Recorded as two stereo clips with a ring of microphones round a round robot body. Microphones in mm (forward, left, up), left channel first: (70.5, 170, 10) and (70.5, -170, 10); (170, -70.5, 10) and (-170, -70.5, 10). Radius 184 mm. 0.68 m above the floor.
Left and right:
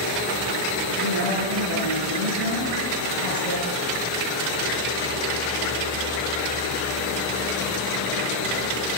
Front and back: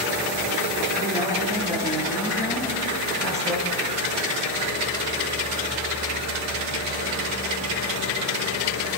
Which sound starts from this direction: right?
A woman speaking, at 1.0 s.